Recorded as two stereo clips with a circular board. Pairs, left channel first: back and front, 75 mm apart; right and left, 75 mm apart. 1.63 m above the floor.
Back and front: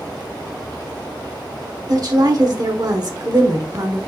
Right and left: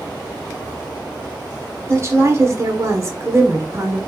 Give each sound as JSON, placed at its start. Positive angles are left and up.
{"t": 1.9, "sound": "a woman speaking", "azimuth_deg": 40, "distance_m": 1.2}